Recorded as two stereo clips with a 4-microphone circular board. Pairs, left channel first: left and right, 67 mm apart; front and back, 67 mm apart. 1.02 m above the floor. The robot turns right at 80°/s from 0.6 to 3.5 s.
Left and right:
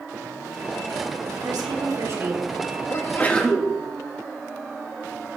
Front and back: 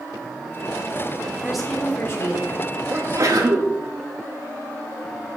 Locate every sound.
1.4 s a woman speaking: 105° right, 3 m; by 2.6 s 10° right, 3 m
2.9 s a sneeze: 130° left, 1.8 m; by 3.7 s 175° left, 1.8 m